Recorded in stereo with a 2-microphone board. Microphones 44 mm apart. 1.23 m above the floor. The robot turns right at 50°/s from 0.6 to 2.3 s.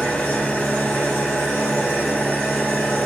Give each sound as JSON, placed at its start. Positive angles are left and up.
{"t": 0.0, "sound": "an engine running", "azimuth_deg": 50, "distance_m": 1.5}